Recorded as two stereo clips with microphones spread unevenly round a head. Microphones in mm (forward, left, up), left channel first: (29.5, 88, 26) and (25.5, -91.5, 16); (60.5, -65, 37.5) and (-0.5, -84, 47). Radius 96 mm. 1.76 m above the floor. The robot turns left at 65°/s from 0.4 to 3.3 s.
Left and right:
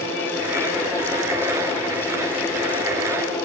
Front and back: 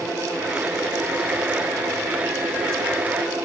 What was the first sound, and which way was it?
Only background noise.